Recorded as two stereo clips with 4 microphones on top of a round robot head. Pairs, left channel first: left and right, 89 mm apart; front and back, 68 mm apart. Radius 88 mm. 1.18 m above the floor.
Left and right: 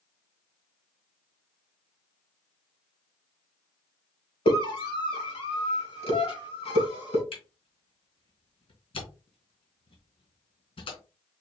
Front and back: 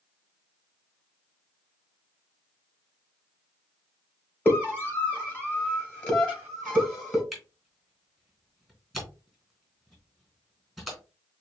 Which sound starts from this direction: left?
A camera shutter, at 7.3 s.